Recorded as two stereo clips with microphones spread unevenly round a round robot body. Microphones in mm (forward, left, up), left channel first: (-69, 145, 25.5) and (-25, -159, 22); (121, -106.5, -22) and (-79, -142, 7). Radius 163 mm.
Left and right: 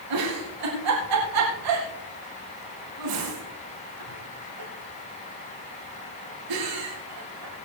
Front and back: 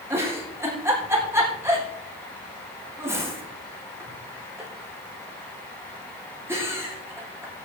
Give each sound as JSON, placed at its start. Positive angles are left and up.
{"t": 0.1, "sound": "a giggle", "azimuth_deg": -90, "distance_m": 6.0}